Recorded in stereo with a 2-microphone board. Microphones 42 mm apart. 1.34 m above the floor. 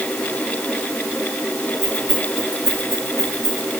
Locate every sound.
1.8 s keys jangling: 75° right (ahead or behind), 6 m